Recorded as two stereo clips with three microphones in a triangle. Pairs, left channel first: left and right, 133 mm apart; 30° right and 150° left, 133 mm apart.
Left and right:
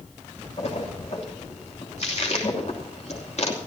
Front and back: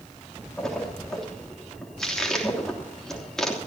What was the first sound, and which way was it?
A splash, 55° left.